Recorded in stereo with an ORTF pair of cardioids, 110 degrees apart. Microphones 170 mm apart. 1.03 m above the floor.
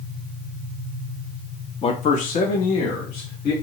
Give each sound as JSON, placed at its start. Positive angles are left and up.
{"t": 1.8, "sound": "a man speaking", "azimuth_deg": 35, "distance_m": 0.6}